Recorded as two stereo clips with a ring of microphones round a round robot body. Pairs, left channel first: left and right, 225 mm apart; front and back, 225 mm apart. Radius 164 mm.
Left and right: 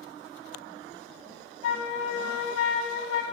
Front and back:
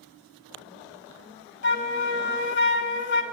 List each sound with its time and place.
1.6 s a flute: 45° left, 0.6 m